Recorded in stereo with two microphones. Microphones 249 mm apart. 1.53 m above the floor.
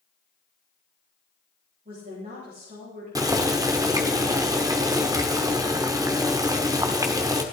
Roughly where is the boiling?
Centre.